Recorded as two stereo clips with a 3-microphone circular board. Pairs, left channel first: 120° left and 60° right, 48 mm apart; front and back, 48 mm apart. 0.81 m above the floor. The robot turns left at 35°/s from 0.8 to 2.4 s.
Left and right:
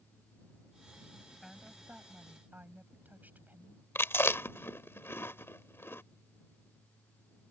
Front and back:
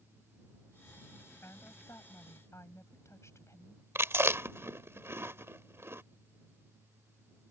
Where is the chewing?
150° left.